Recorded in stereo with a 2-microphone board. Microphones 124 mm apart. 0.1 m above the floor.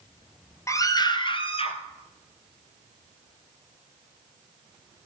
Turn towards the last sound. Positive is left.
turn(degrees=55)  # may be behind; listen again after turning